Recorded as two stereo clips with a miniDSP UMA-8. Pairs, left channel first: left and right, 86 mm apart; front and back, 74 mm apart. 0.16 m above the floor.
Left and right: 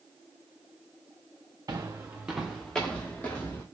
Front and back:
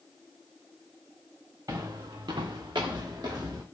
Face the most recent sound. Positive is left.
turn(degrees=155)